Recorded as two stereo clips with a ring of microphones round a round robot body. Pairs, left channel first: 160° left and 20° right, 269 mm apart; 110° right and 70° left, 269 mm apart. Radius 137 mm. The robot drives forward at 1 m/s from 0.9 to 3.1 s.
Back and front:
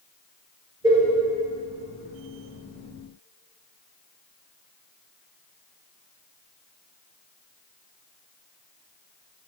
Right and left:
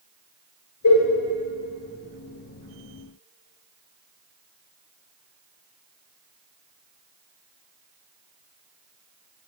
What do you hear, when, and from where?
0.8 s a cowbell: 95° right, 1.8 m; by 1.1 s 100° right, 1.8 m